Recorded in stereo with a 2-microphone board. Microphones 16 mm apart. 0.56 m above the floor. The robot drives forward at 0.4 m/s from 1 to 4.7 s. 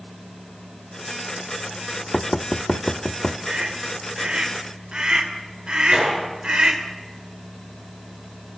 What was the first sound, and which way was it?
Knocking, 65° left (ahead or behind).